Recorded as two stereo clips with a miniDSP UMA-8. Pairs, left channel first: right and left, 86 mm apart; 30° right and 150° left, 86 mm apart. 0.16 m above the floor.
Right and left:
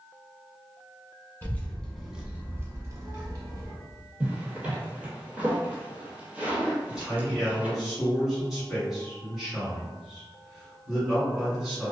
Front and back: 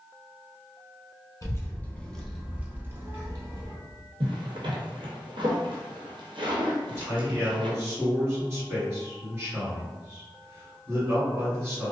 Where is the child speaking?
40° right, 0.8 m; by 3.7 s 115° left, 1.2 m.